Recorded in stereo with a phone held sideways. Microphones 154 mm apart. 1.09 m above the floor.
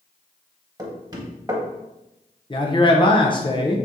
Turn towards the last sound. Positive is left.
turn(degrees=30)  # may be behind; listen again after turning